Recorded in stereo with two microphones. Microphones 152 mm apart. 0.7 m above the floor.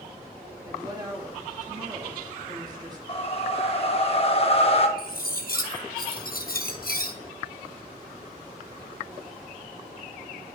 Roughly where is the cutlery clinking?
Left.